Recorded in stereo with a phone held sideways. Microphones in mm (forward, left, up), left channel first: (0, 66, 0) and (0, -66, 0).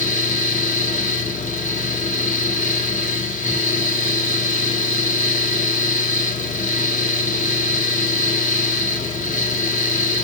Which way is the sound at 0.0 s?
70° left (ahead or behind).